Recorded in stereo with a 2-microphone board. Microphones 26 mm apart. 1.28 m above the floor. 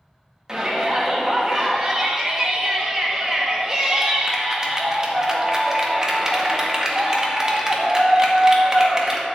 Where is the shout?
20° right (ahead or behind), 1.9 m.